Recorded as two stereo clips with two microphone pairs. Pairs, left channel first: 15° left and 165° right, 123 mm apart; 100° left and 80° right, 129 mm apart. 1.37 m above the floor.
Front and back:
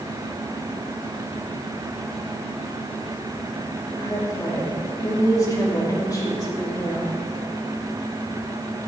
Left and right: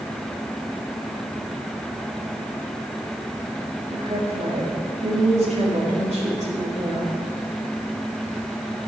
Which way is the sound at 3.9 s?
50° right.